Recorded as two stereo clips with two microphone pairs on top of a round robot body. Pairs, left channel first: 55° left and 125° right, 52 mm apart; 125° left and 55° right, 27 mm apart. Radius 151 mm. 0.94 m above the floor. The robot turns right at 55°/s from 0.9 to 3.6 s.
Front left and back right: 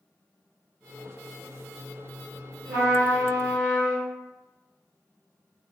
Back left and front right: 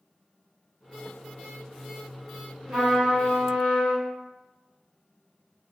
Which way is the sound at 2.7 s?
120° right.